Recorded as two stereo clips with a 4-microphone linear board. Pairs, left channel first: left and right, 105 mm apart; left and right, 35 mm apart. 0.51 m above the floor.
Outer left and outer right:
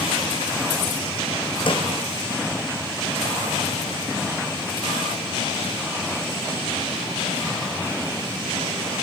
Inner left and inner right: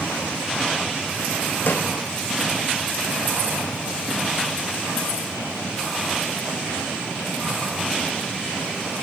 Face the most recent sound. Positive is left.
turn(degrees=55)  # may be behind; listen again after turning